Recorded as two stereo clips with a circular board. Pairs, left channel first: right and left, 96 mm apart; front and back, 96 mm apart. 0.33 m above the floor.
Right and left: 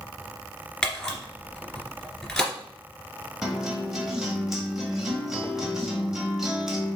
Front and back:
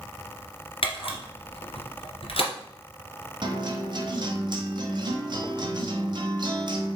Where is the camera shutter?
5° right, 2 m.